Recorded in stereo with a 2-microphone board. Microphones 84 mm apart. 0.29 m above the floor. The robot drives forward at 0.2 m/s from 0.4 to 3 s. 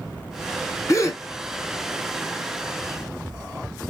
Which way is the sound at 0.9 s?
40° left (ahead or behind).